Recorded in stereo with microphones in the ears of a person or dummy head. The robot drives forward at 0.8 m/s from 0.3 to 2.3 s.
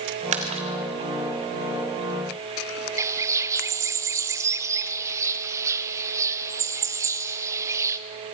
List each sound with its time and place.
0.3 s a splash: 35° right (ahead or behind), 2 m; by 1.1 s 25° right (ahead or behind), 2.5 m
3.0 s a bird: 20° right (ahead or behind), 0.7 m